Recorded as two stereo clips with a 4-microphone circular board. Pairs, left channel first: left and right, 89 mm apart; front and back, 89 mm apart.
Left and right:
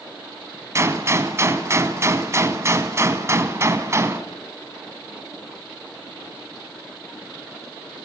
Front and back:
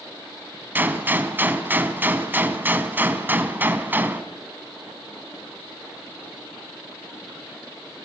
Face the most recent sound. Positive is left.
turn(degrees=-125)